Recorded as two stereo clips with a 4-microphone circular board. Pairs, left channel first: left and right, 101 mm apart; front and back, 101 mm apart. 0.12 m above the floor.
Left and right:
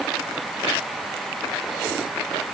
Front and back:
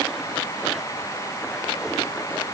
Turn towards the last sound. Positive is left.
No sound to turn to.